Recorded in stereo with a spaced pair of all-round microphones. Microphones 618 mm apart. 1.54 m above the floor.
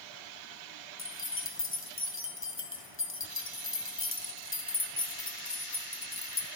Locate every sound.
1.0 s keys jangling: 20° left (ahead or behind), 0.6 m